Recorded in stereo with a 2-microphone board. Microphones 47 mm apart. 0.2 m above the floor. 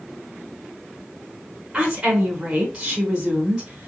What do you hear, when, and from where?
1.7 s a woman speaking: 15° right (ahead or behind), 1.6 m